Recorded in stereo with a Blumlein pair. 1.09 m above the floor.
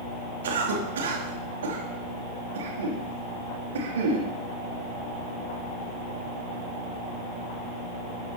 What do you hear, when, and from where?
0.4 s a cough: 65° right, 2.5 m